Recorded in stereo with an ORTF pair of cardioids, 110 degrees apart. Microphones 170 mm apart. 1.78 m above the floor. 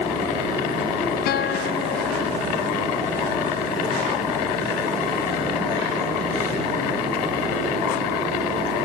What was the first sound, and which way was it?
A guitar, 70° left.